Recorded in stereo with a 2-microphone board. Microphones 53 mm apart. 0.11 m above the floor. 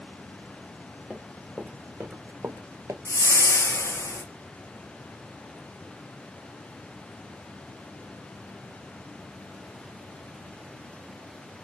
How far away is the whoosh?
About 0.7 m.